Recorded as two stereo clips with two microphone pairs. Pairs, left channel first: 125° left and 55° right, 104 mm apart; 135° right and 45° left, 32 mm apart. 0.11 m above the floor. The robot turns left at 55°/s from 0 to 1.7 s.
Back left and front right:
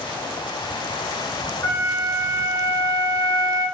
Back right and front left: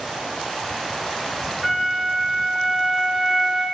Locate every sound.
1.6 s a flute: 110° left, 1.6 m; by 3.6 s 105° left, 1.6 m